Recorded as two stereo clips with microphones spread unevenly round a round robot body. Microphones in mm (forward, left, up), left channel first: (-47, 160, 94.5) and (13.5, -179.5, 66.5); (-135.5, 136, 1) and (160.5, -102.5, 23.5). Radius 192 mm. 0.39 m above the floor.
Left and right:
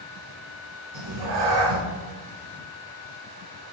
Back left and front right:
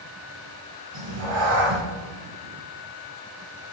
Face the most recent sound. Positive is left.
turn(degrees=-75)